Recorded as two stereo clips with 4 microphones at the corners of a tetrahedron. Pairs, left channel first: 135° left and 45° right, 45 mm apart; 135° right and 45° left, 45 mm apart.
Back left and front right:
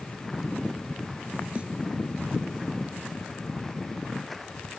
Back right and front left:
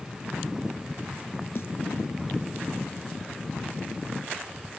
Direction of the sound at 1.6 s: 110° right.